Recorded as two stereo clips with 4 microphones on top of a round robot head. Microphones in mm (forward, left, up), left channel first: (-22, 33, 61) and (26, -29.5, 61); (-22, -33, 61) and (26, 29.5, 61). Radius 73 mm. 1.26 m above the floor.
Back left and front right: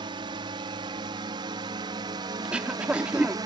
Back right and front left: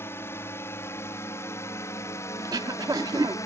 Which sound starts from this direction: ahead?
Throat clearing, at 2.4 s.